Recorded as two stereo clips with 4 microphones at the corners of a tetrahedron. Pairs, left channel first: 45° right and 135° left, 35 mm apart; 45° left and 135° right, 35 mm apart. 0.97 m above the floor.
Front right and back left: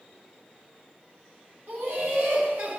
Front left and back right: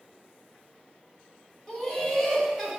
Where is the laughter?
125° left, 3 m; by 2.8 s 140° left, 3 m.